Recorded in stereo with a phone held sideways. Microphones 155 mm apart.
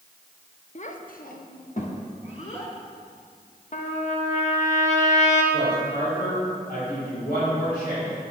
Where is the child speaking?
45° left (ahead or behind), 0.9 m; by 2.7 s 40° left (ahead or behind), 2 m.